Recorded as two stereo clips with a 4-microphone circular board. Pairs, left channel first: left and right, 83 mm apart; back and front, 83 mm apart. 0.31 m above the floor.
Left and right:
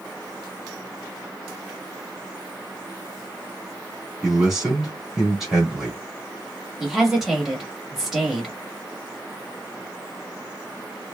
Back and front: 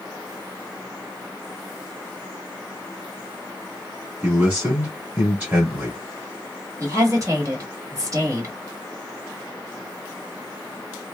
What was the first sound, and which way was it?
A man speaking, 15° right.